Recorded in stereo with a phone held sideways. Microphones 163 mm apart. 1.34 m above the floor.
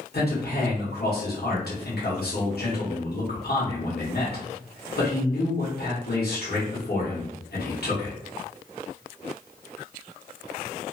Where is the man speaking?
70° left (ahead or behind), 1.2 m.